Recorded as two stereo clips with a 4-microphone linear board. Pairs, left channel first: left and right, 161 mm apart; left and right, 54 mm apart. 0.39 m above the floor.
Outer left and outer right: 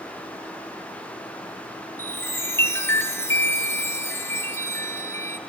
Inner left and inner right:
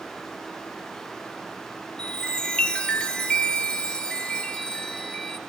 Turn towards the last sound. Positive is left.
turn(degrees=15)  # may be behind; listen again after turning